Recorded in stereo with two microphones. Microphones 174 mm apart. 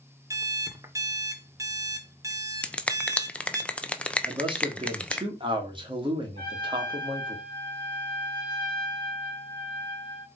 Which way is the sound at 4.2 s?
30° right (ahead or behind).